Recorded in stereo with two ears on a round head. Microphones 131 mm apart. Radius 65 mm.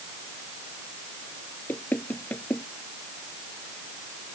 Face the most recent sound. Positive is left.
turn(degrees=10)  # may be behind; listen again after turning